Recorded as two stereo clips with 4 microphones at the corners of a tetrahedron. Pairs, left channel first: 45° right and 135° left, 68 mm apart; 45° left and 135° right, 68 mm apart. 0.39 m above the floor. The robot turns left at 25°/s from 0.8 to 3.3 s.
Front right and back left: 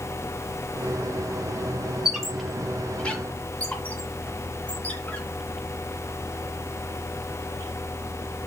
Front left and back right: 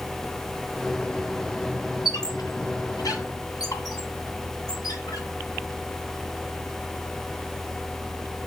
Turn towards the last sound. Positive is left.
turn(degrees=20)